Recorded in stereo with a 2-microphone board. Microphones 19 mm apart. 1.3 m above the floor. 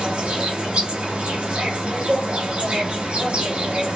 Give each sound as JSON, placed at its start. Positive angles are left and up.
{"t": 0.0, "sound": "an insect", "side_deg": -75, "distance_m": 3.0}